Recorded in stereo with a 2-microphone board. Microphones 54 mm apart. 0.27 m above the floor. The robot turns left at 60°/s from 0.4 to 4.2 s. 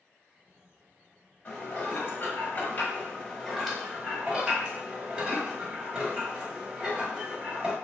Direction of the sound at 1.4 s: 135° left.